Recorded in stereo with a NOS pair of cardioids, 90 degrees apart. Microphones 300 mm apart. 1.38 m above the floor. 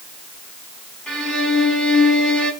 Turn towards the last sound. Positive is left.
turn(degrees=5)